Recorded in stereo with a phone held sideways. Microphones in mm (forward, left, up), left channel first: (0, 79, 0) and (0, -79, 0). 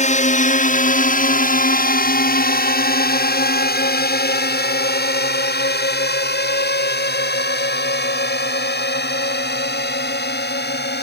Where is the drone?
45° left (ahead or behind); by 11.0 s 80° left.